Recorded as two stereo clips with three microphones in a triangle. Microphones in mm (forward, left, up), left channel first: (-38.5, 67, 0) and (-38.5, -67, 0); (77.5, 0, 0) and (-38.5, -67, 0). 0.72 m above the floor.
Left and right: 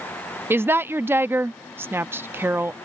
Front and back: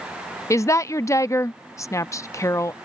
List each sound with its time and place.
0.5 s a woman speaking: 25° right